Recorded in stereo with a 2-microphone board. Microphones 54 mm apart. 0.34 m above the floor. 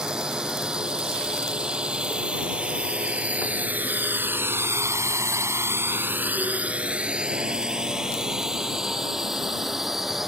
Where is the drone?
15° right (ahead or behind); by 10.3 s 5° right (ahead or behind).